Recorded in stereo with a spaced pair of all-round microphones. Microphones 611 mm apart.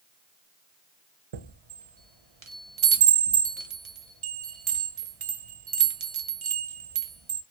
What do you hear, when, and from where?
1.3 s a chime: 55° right (ahead or behind), 0.6 m